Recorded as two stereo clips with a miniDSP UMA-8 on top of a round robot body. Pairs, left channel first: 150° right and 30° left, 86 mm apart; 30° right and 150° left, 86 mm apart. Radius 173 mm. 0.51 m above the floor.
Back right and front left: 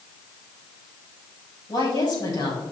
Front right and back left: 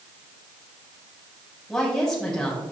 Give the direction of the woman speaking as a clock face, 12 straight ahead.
4 o'clock.